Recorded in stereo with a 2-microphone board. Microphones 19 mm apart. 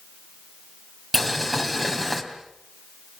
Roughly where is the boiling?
Centre.